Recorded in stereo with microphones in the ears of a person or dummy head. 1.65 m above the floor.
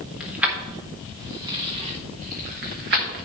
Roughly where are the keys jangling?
Centre.